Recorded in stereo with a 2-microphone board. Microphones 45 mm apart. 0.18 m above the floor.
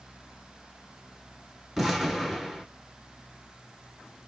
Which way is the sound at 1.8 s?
5° right (ahead or behind).